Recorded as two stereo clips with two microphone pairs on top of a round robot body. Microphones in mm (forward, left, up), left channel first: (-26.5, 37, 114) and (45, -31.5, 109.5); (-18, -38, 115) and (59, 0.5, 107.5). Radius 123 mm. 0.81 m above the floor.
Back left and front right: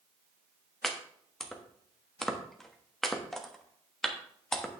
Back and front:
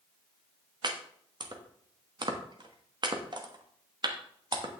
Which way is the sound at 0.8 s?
50° left.